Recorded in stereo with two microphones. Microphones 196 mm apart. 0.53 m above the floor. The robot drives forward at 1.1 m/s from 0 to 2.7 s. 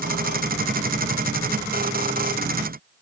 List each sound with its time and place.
Only background noise.